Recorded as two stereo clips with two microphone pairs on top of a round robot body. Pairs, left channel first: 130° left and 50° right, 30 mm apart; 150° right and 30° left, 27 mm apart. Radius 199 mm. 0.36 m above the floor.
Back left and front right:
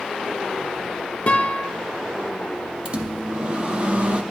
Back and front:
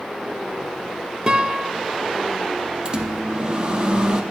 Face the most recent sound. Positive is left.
turn(degrees=-10)